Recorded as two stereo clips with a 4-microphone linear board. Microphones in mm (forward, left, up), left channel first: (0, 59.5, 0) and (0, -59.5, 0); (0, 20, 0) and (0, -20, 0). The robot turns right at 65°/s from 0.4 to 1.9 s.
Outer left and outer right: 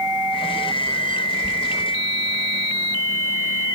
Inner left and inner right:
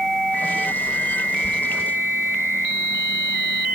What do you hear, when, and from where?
1.4 s a squeak: 60° left (ahead or behind), 1.1 m; by 1.6 s 55° left (ahead or behind), 1.1 m